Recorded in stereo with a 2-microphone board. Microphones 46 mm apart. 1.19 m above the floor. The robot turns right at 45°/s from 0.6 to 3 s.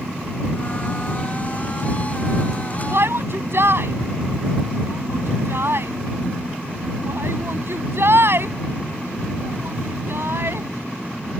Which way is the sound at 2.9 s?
65° right (ahead or behind).